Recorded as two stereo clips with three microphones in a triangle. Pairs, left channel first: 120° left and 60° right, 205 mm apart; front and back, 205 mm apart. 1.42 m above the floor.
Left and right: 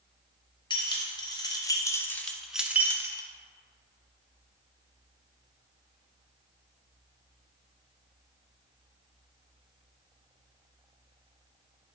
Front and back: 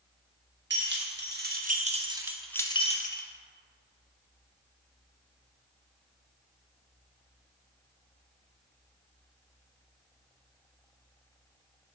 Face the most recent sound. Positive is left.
turn(degrees=10)